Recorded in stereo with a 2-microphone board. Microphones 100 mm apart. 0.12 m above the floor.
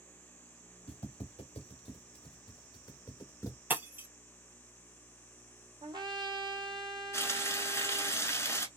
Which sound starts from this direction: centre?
Breaking glass, at 3.7 s.